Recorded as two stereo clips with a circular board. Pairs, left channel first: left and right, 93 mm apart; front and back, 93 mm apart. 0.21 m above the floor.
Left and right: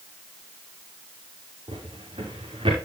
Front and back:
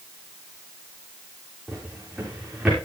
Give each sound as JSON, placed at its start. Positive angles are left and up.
{"t": 1.7, "sound": "a drawer", "azimuth_deg": -100, "distance_m": 6.5}